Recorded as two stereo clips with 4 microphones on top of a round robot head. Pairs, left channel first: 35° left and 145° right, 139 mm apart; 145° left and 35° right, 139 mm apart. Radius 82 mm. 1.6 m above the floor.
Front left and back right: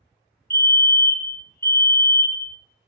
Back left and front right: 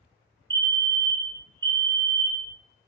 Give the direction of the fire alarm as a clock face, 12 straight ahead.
1 o'clock.